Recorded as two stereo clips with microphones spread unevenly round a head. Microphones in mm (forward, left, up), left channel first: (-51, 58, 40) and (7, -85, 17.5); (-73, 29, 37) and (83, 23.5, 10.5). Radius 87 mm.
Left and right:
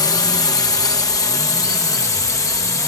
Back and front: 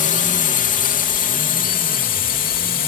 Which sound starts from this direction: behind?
A drone, at 0.0 s.